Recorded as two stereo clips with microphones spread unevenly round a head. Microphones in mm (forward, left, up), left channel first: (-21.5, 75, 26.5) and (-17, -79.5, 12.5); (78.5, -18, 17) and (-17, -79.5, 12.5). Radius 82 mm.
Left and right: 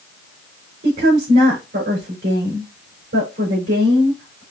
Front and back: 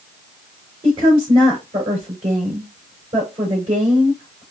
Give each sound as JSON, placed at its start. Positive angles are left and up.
{"t": 0.8, "sound": "a woman speaking", "azimuth_deg": -110, "distance_m": 3.0}